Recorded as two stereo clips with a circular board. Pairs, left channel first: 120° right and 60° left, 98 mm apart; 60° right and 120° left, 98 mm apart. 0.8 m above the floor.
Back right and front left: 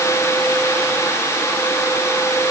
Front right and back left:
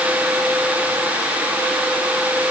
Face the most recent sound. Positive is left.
No sound to turn to.